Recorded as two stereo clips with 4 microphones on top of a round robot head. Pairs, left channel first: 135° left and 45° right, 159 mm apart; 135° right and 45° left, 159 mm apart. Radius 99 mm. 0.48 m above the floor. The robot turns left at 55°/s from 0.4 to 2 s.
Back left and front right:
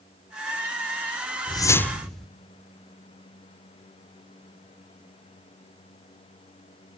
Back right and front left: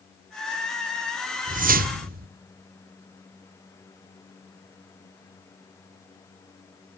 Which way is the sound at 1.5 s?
75° left.